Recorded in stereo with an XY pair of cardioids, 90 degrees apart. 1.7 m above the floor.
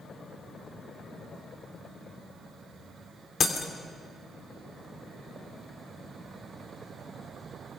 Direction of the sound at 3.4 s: 50° left.